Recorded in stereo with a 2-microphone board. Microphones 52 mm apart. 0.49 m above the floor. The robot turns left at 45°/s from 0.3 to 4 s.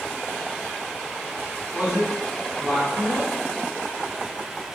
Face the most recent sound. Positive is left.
turn(degrees=-135)